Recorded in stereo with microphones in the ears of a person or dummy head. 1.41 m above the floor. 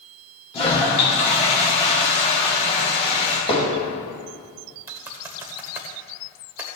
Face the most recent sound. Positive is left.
turn(degrees=-20)  # may be behind; listen again after turning